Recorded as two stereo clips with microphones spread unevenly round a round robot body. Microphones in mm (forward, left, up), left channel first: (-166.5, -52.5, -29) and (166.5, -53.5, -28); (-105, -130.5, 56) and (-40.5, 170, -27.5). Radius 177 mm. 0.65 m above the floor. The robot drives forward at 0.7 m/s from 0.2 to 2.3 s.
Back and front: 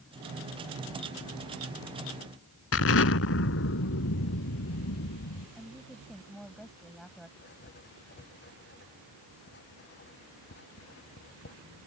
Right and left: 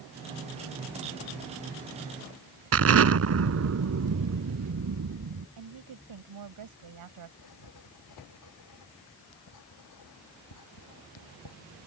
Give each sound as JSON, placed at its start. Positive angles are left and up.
{"t": 2.7, "sound": "an explosion", "azimuth_deg": 125}
{"t": 5.6, "sound": "a woman speaking", "azimuth_deg": 90}
{"t": 7.4, "sound": "writing", "azimuth_deg": -120}